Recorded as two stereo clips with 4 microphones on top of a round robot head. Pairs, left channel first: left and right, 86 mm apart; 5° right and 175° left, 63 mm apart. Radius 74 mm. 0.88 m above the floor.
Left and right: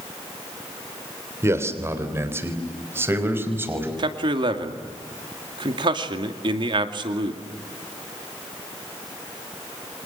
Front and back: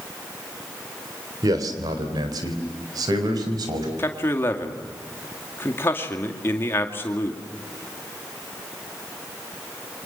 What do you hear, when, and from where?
1.4 s a man speaking: 150° right, 3 m; by 3.9 s 155° right, 5.5 m
4.0 s a man speaking: 60° right, 2.5 m